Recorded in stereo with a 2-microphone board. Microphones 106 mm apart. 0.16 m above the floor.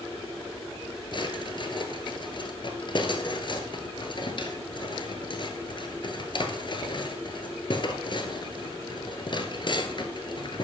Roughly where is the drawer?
Left.